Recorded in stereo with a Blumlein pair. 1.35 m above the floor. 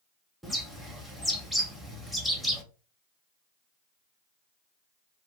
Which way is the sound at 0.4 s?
Straight ahead.